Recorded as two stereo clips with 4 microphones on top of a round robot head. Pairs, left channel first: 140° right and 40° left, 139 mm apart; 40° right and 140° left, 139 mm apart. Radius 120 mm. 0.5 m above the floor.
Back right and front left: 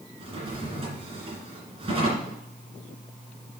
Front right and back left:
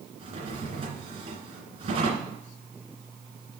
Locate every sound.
0.2 s a drawer: 90° left, 2.5 m